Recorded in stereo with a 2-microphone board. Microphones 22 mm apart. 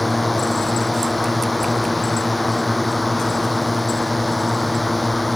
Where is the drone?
Centre (ahead or behind).